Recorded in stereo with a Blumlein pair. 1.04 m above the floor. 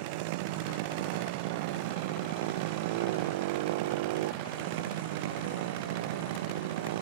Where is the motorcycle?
50° right; by 7.0 s 55° right.